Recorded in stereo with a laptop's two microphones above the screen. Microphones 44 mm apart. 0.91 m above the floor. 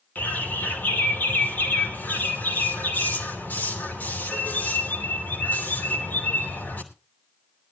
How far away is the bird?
About 3 m.